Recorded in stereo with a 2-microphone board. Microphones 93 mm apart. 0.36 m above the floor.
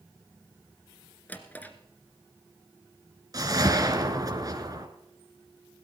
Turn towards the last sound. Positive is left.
turn(degrees=-40)  # may be behind; listen again after turning